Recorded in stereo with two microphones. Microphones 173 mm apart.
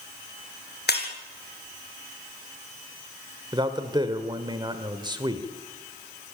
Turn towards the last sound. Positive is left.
turn(degrees=-25)  # may be behind; listen again after turning